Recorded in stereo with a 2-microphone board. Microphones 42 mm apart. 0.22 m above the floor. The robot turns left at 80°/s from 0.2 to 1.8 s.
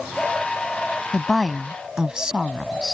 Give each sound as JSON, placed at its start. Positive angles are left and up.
{"t": 1.1, "sound": "a woman speaking", "azimuth_deg": 25}